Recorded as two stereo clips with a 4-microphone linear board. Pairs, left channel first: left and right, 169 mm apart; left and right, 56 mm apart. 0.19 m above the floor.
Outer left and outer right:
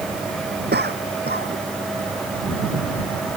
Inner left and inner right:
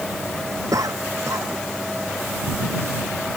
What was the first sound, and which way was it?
A cough, 80° right.